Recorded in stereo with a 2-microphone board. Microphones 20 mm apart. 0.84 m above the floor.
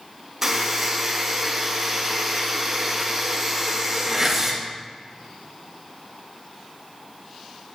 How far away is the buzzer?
About 1.7 m.